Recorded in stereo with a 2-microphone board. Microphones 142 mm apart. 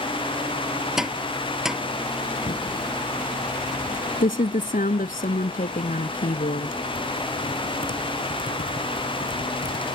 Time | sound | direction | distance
1.0 | tapping | 5° right (ahead or behind) | ?
2.5 | typing on a keyboard | 80° left | ?